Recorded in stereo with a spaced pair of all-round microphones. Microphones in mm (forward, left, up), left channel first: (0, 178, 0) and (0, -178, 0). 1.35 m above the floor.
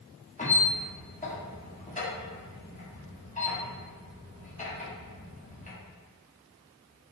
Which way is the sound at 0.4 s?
20° left (ahead or behind).